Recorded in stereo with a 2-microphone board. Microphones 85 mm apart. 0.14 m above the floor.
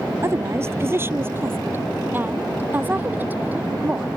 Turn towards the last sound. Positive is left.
turn(degrees=-20)  # may be behind; listen again after turning